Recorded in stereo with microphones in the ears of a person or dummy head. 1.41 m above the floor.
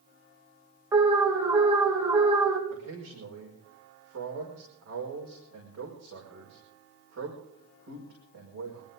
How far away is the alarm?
About 2.5 m.